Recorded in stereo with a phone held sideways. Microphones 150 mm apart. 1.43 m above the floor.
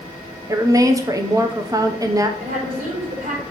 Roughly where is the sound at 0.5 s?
Right.